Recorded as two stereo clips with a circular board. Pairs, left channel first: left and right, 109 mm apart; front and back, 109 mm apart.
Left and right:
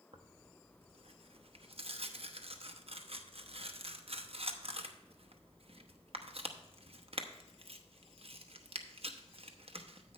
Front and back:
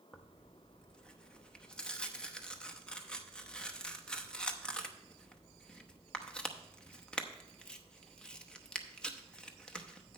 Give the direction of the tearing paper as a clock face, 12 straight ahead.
3 o'clock.